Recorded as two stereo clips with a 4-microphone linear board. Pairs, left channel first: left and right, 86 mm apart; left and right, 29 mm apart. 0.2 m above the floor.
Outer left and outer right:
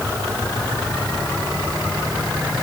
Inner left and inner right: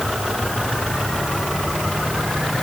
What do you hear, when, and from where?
Only background noise.